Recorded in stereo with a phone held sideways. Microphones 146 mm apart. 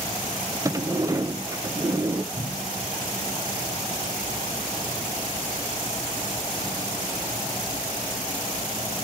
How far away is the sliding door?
About 0.6 m.